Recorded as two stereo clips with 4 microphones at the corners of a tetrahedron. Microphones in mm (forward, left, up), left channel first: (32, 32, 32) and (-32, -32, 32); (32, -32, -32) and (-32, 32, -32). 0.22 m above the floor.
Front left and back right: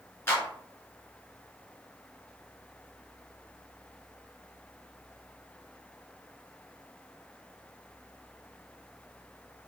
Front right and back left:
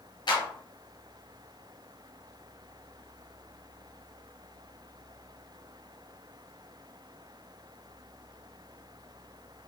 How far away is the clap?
About 2.5 m.